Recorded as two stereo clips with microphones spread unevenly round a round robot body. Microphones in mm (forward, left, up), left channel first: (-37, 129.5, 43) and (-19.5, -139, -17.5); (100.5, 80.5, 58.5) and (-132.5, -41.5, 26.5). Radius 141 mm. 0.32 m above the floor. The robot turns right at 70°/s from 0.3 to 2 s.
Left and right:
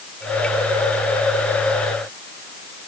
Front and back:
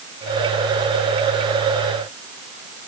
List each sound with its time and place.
Only background noise.